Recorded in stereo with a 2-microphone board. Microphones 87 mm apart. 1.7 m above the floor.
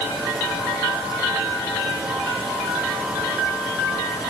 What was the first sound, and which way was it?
Only background noise.